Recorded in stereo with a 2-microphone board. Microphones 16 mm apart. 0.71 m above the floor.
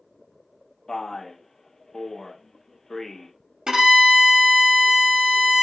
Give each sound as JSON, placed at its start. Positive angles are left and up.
{"t": 0.9, "sound": "a man speaking", "side_deg": 35, "distance_m": 0.5}
{"t": 3.7, "sound": "a violin", "side_deg": -50, "distance_m": 0.7}